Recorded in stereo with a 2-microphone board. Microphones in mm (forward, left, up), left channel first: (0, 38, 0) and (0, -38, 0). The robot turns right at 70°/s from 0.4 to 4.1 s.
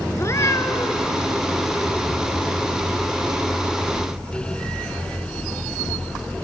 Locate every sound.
0.2 s a cat meowing: 60° left, 1.0 m; by 1.1 s 110° left, 1.0 m